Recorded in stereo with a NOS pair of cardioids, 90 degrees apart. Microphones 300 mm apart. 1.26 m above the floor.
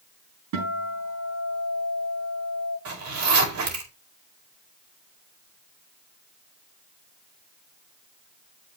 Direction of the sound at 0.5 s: 70° right.